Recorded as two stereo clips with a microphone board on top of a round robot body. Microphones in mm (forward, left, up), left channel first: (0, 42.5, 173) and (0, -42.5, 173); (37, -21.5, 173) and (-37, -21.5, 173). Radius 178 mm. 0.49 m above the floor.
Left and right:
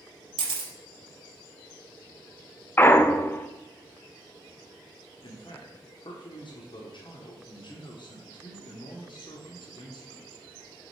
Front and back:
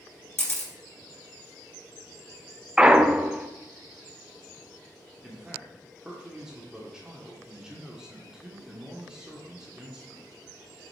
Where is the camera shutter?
65° right, 3 m.